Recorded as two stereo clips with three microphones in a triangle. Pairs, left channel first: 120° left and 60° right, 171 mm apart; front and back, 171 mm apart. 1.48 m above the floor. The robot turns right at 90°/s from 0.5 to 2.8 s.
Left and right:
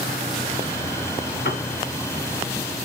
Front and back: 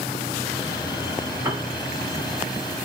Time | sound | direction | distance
1.4 | a piano | 105° left | 0.9 m